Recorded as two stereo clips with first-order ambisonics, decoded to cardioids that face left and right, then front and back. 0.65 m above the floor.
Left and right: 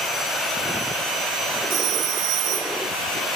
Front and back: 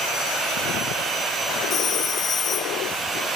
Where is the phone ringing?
55° right, 0.8 m.